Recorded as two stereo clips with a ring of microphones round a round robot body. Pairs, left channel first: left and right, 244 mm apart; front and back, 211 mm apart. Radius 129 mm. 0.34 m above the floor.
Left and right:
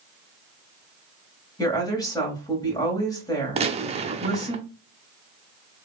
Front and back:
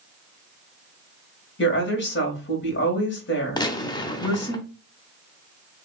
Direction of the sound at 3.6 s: 50° right.